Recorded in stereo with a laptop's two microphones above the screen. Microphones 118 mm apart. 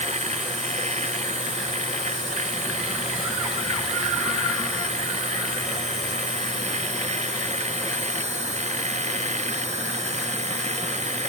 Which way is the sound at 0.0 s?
80° right.